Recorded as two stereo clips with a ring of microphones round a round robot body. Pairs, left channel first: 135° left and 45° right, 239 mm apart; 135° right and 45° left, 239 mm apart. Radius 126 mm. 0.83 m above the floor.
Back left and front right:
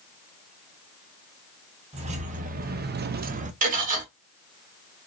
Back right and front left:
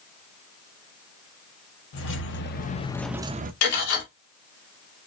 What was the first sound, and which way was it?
Keys jangling, 110° right.